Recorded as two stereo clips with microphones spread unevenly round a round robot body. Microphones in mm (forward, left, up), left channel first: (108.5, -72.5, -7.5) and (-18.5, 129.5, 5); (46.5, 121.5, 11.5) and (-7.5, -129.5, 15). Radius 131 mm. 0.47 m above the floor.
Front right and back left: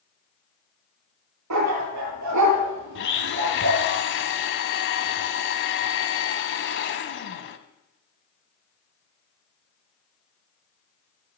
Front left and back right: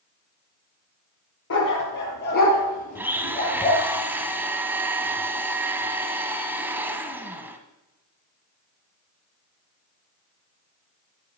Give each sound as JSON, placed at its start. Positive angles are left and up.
{"t": 1.5, "sound": "a dog barking", "azimuth_deg": 125, "distance_m": 5.0}
{"t": 3.0, "sound": "a blender", "azimuth_deg": -20, "distance_m": 1.3}